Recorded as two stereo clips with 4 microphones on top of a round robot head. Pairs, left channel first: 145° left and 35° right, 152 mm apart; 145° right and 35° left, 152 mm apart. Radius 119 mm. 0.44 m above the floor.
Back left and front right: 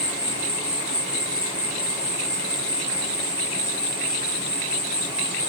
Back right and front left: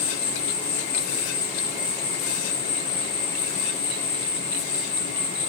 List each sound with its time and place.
0.0 s an insect: 120° right, 1.7 m